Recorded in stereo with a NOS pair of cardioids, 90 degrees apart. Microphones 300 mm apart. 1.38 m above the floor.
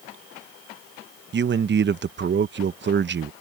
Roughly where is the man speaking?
Ahead right.